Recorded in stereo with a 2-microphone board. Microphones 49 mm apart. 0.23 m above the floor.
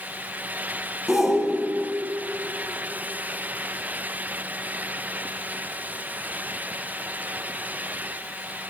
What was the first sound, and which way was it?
A shout, 10° right (ahead or behind).